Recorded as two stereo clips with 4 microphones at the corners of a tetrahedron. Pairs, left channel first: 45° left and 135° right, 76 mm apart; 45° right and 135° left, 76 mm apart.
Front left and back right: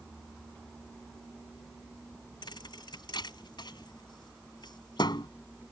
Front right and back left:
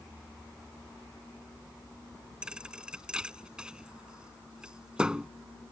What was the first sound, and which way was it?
A thud, 60° left.